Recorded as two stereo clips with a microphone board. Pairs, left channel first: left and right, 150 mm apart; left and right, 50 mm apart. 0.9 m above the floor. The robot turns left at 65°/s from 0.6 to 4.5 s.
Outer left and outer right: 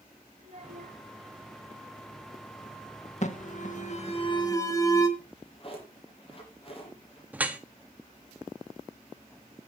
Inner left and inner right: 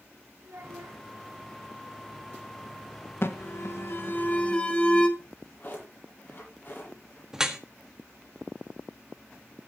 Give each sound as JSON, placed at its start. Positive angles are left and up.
{"t": 0.4, "sound": "a child speaking", "side_deg": -55, "distance_m": 4.5}
{"t": 3.2, "sound": "an alarm", "azimuth_deg": 110, "distance_m": 1.6}
{"t": 5.2, "sound": "a drawer", "side_deg": 40, "distance_m": 9.0}
{"t": 7.3, "sound": "dripping", "side_deg": -10, "distance_m": 1.4}